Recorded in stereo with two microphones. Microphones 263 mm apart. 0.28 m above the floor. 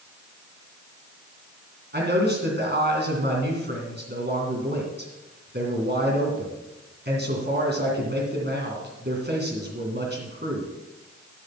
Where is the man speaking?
40° right (ahead or behind), 2.5 m.